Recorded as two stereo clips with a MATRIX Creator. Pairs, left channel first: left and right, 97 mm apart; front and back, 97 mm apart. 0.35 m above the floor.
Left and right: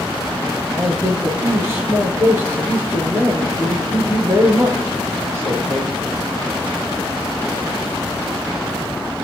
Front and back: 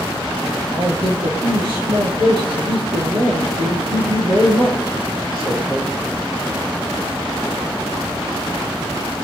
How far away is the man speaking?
About 6 m.